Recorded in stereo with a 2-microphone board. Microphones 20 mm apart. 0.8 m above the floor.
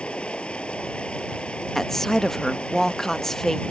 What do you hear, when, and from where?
0.0 s running water: 75° left (ahead or behind)
1.8 s a woman speaking: 20° left (ahead or behind)